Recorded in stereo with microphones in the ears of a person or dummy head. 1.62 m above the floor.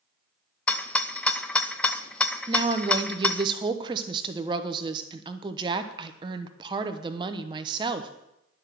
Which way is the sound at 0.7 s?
10° left (ahead or behind).